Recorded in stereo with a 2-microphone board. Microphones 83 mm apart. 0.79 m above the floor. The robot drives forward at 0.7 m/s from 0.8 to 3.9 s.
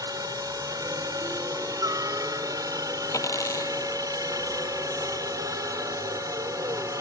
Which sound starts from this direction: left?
A dropped coin, at 3.1 s.